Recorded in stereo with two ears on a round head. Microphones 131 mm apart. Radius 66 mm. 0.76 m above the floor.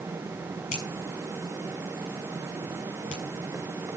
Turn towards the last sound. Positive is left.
turn(degrees=55)  # may be behind; listen again after turning